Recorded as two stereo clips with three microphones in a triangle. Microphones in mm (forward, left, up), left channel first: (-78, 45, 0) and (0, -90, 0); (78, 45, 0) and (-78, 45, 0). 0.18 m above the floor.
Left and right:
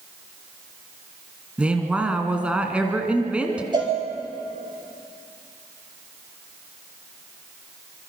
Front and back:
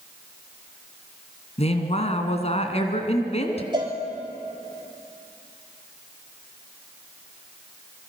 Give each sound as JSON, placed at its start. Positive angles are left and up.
{"t": 1.6, "sound": "a woman speaking", "azimuth_deg": 20, "distance_m": 2.0}
{"t": 3.7, "sound": "a cowbell", "azimuth_deg": -120, "distance_m": 4.0}